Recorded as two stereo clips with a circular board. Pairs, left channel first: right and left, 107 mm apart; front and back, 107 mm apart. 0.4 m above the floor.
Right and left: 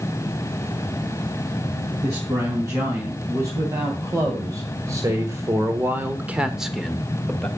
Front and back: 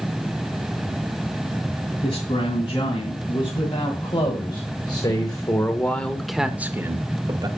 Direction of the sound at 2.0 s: 30° left.